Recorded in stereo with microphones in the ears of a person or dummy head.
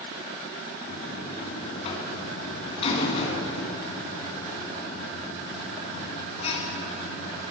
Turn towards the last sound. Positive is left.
turn(degrees=35)  # may be behind; listen again after turning